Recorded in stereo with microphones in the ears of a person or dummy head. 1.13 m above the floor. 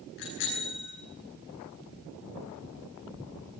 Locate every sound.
0.2 s a bicycle bell: 60° left (ahead or behind), 10 m